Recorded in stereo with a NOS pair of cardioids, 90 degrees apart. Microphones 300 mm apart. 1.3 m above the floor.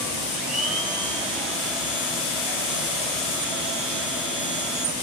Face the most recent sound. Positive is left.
turn(degrees=0)